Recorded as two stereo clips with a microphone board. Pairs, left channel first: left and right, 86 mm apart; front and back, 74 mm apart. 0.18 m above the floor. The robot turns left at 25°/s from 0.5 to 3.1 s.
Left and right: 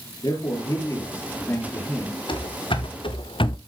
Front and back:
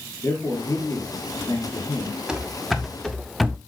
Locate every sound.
0.2 s a man speaking: 50° left, 3.5 m; by 2.2 s 10° left, 3.5 m
2.3 s running footsteps: 100° left, 2.5 m; by 3.6 s 95° left, 0.8 m